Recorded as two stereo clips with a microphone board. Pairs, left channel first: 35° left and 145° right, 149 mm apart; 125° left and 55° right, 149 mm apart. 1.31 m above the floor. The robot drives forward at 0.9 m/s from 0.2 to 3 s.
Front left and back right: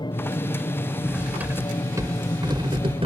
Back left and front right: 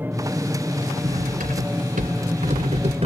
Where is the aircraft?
10° left; by 3.1 s 15° left.